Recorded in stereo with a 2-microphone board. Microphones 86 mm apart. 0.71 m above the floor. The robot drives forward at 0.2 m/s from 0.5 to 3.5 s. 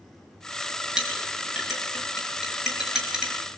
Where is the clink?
10° right (ahead or behind), 6 m.